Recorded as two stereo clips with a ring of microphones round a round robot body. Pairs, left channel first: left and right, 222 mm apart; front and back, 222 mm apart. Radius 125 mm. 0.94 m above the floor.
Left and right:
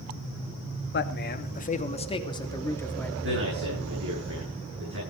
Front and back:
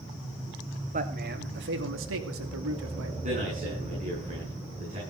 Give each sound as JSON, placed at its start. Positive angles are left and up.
{"t": 0.9, "sound": "a man speaking", "azimuth_deg": 125, "distance_m": 2.5}
{"t": 3.2, "sound": "a man speaking", "azimuth_deg": -120, "distance_m": 9.0}